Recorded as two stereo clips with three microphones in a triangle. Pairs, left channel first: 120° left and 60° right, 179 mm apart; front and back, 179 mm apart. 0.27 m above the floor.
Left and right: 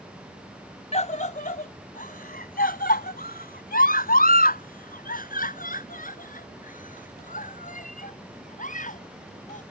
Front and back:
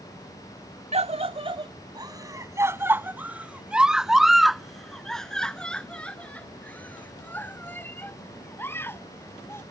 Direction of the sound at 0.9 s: 150° left.